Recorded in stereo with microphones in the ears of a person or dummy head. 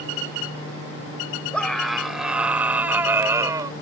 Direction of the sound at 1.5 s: Centre (ahead or behind).